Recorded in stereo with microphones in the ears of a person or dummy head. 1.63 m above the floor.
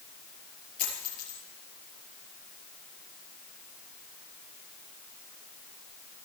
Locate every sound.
0.8 s a dropped coin: 35° left (ahead or behind), 6.5 m